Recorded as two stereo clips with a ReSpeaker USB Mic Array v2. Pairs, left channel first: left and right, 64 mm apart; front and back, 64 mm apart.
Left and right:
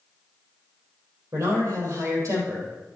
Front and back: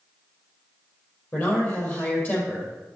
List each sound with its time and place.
1.3 s a man speaking: 50° right, 4 m